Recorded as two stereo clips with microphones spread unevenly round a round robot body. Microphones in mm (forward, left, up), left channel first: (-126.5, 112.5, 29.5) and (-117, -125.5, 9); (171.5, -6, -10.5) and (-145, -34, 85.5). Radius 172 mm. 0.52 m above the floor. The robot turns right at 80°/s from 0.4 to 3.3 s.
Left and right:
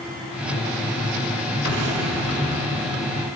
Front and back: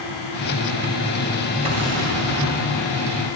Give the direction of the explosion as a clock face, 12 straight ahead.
3 o'clock.